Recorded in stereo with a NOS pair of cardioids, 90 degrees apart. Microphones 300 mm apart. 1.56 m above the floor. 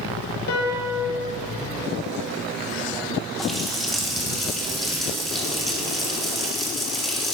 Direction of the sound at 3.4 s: Straight ahead.